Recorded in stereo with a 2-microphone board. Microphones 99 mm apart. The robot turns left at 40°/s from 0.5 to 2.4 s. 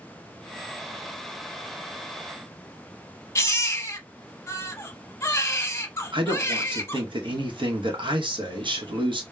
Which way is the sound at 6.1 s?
55° right (ahead or behind).